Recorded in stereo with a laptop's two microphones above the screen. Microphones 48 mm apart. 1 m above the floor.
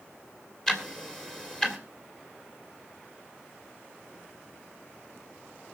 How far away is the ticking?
About 1.6 m.